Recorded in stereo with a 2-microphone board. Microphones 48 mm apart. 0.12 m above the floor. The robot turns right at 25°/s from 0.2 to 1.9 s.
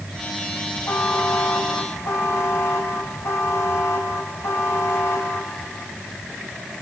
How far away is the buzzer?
About 4 m.